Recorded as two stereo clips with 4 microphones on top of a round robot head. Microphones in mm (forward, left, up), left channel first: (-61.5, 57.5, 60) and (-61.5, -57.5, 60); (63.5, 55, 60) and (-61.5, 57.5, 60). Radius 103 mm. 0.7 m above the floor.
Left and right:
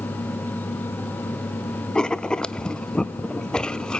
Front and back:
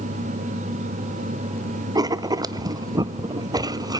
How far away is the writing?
About 0.6 m.